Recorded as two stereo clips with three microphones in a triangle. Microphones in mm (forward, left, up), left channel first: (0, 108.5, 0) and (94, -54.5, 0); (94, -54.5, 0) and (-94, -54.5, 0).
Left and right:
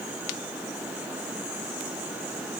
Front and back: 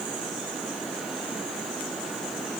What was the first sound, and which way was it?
Only background noise.